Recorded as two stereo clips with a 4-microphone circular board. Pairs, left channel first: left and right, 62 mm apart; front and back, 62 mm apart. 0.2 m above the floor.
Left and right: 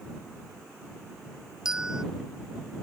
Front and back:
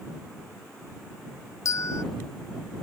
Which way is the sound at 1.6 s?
15° right.